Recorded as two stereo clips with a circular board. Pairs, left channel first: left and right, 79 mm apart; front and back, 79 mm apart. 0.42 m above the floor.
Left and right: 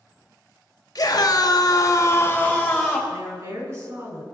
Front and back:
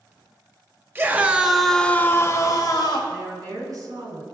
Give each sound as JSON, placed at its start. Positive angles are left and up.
{"t": 0.9, "sound": "a scream", "azimuth_deg": 120, "distance_m": 1.4}
{"t": 3.1, "sound": "a woman speaking", "azimuth_deg": -140, "distance_m": 4.0}